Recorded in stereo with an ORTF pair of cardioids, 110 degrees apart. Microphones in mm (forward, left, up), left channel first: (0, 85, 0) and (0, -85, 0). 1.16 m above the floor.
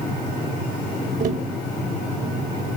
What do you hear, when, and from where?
1.2 s tapping: 50° right, 4.5 m